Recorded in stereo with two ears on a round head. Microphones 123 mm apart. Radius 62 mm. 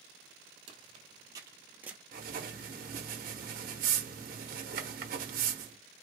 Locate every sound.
0.7 s footsteps: 40° right (ahead or behind), 1.5 m; by 2.0 s 10° right (ahead or behind), 1.1 m
2.1 s writing: 65° right (ahead or behind), 0.9 m